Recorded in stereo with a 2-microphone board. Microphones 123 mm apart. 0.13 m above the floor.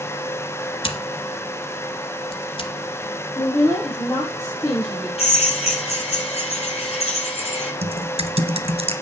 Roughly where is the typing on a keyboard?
Right.